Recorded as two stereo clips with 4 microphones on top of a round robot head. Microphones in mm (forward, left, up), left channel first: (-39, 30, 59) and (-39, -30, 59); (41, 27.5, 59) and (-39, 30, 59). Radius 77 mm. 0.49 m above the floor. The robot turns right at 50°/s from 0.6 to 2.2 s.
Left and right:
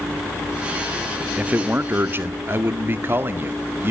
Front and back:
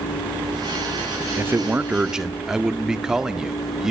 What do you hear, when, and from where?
1.4 s a man speaking: 145° right, 1.5 m; by 3.9 s 105° right, 1.5 m